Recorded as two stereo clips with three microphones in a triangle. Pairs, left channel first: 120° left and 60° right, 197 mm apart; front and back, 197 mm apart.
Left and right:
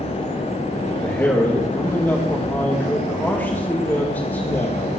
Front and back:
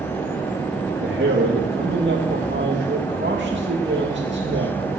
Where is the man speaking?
160° right, 2 m.